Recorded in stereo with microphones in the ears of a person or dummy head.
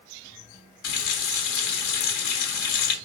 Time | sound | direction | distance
0.8 | a running tap | 70° left (ahead or behind) | 1.0 m